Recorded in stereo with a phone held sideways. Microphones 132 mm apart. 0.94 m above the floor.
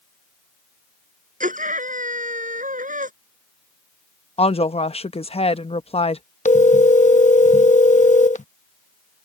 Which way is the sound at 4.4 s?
50° left (ahead or behind).